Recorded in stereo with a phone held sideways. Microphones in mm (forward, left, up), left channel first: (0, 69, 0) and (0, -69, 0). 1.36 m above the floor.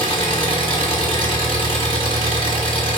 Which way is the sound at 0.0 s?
40° left (ahead or behind).